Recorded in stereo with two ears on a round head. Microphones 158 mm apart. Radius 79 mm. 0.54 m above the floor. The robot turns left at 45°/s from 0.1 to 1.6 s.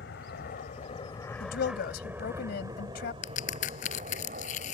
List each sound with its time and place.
0.0 s an aircraft: 65° left (ahead or behind); by 4.8 s 50° right (ahead or behind)
1.4 s a woman speaking: 55° left (ahead or behind); by 3.1 s 60° left (ahead or behind)
3.2 s a crack: 45° left (ahead or behind)